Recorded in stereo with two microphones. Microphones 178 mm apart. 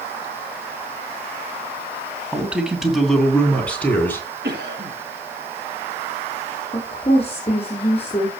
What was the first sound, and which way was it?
A man speaking, 10° right (ahead or behind).